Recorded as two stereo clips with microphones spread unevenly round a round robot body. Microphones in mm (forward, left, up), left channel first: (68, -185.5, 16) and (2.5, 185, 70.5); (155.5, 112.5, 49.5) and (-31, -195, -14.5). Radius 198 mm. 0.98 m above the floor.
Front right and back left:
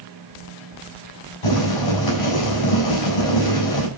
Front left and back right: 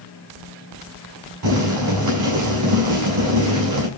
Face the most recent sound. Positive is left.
turn(degrees=-80)